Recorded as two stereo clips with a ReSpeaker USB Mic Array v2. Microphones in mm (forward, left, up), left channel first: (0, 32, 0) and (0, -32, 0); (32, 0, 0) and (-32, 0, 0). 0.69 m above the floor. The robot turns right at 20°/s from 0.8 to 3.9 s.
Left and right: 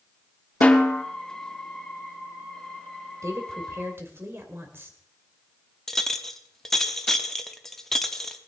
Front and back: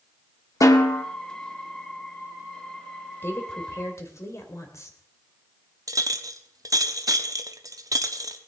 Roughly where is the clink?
Behind.